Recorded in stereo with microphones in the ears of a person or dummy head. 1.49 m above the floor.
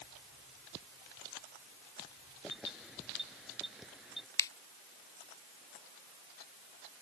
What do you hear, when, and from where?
2.4 s keys jangling: centre (ahead or behind)
4.4 s a finger snap: 15° left (ahead or behind)